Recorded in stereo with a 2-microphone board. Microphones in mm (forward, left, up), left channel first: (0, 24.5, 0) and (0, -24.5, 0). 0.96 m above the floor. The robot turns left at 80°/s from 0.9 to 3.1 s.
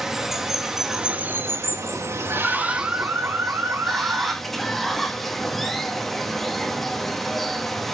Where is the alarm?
5° right, 1.0 m; by 4.3 s 55° right, 1.0 m.